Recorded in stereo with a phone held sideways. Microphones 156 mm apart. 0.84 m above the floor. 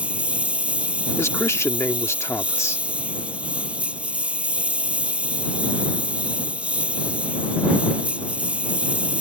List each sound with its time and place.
0.0 s a lawn mower: 10° right (ahead or behind)
1.2 s a man speaking: 20° left (ahead or behind)